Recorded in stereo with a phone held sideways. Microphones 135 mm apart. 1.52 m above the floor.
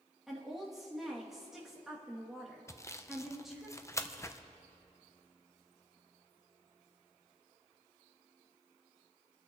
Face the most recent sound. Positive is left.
turn(degrees=20)  # may be behind; listen again after turning